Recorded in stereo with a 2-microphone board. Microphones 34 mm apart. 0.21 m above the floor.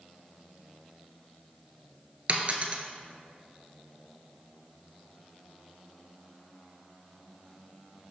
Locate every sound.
2.3 s a dropped coin: 40° right (ahead or behind), 0.7 m